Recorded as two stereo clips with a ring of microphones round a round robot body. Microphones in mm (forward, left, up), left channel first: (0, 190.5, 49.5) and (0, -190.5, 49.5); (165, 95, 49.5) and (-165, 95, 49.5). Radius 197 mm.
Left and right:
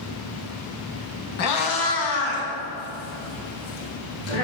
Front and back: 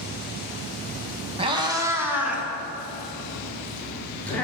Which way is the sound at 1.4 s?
115° left.